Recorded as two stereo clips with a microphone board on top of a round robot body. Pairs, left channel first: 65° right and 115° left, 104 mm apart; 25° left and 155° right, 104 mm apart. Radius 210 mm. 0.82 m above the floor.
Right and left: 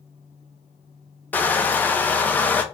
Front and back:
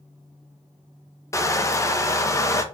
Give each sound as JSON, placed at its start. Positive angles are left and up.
{"t": 1.3, "sound": "crushing", "azimuth_deg": -5, "distance_m": 0.9}